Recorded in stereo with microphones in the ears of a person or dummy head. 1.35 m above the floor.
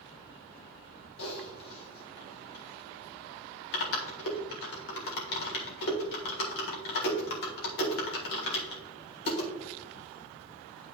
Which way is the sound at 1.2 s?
60° left (ahead or behind).